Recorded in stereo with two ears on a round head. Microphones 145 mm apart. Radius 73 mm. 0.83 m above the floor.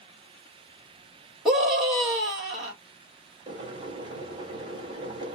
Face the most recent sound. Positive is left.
turn(degrees=-25)  # may be behind; listen again after turning